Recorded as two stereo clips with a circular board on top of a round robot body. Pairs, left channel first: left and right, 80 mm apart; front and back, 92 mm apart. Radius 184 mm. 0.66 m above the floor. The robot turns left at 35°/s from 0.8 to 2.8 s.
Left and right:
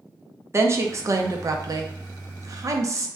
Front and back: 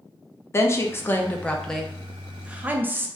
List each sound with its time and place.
0.5 s a woman speaking: 50° right, 0.6 m; by 3.1 s 120° right, 0.6 m